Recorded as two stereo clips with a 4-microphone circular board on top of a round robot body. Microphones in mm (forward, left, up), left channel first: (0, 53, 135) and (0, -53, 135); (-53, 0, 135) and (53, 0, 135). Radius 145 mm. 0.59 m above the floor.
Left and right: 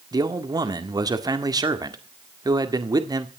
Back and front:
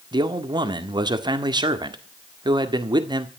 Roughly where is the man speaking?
Ahead right.